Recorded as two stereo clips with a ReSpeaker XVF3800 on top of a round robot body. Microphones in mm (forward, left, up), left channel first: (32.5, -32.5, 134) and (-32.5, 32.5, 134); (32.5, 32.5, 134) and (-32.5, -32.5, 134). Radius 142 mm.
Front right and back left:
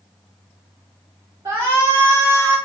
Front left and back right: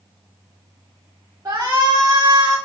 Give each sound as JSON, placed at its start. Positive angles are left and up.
{"t": 1.4, "sound": "a shout", "azimuth_deg": 180, "distance_m": 2.5}